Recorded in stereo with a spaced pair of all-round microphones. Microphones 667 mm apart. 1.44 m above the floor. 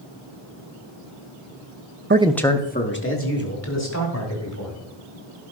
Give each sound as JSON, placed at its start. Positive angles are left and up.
{"t": 2.1, "sound": "a man speaking", "side_deg": -20, "distance_m": 0.5}